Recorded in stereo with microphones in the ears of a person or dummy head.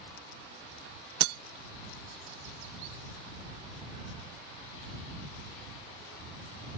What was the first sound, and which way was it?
Breaking glass, 60° right (ahead or behind).